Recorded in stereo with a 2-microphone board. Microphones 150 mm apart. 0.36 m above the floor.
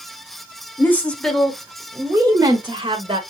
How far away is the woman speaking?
About 1.0 m.